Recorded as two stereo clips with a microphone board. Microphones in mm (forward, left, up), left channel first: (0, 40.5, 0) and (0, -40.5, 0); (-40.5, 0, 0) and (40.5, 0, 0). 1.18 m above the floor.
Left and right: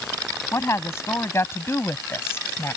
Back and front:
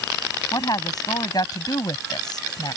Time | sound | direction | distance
0.5 | a woman speaking | 145° left | ?